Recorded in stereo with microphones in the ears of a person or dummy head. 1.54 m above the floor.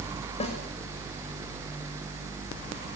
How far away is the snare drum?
About 6 m.